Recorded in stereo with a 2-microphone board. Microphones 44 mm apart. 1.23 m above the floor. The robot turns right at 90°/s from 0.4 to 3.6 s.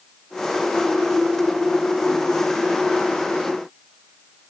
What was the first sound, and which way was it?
Only background noise.